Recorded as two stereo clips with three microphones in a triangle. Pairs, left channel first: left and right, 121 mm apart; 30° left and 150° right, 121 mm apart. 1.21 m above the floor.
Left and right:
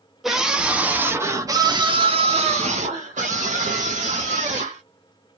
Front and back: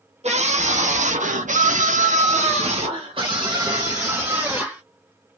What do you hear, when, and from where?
0.2 s a scream: straight behind, 1.4 m; by 4.8 s 75° right, 1.7 m